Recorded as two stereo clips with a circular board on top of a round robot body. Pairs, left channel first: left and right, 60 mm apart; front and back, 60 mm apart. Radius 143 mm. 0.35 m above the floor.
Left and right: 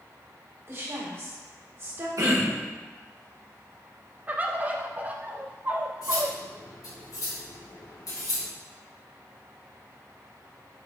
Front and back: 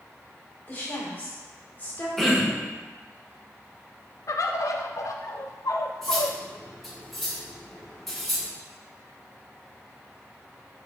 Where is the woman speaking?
55° right, 3 m.